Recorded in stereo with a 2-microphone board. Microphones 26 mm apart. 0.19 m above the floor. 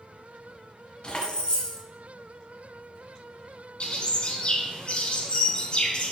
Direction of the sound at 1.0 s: 35° left (ahead or behind).